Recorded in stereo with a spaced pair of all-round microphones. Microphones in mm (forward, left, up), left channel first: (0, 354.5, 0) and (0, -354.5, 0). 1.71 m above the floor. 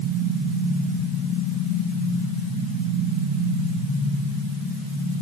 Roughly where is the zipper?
No zipper in this recording.